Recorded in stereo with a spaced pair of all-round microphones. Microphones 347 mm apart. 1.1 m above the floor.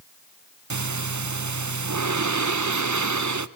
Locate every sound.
0.7 s breathing: 55° right (ahead or behind), 0.6 m